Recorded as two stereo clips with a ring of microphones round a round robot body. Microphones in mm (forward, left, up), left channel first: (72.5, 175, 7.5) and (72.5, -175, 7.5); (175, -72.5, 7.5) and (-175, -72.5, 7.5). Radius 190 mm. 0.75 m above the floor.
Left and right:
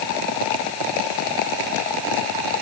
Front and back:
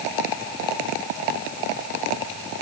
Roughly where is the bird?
I don't hear a bird.